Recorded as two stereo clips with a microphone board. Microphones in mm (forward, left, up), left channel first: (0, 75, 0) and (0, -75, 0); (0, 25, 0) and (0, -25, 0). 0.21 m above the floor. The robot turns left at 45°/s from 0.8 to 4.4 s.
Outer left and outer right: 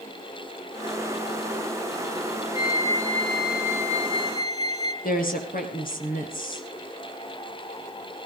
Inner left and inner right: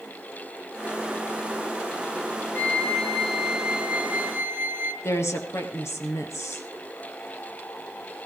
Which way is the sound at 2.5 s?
35° left.